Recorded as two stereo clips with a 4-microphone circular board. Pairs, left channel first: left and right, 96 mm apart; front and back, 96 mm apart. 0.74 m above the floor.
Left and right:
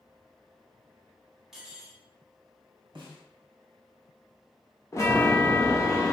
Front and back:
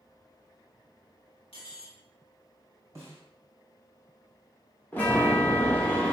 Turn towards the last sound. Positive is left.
turn(degrees=55)